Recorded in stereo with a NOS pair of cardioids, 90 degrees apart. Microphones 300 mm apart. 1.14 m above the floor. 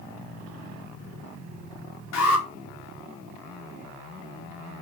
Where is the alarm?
65° left, 3.5 m.